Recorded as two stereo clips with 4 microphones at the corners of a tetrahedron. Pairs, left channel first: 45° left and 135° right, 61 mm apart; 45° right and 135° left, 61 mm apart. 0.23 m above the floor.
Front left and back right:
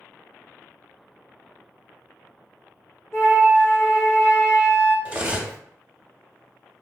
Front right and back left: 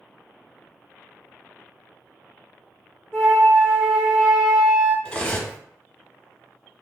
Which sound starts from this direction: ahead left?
A flute, at 3.1 s.